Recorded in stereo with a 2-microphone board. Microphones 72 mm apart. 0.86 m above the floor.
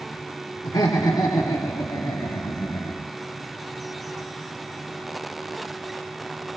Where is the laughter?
75° left (ahead or behind), 2.5 m; by 3.0 s 65° left (ahead or behind), 1.7 m.